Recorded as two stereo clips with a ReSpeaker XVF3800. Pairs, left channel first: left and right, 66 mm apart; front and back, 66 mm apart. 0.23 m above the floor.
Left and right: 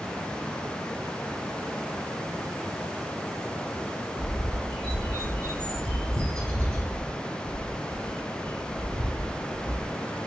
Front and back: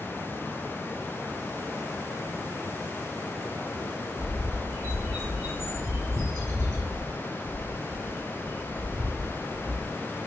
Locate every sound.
4.2 s a bird: 160° left, 2 m